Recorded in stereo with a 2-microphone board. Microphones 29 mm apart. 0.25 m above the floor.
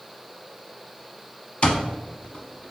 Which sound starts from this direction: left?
An alarm clock, at 1.6 s.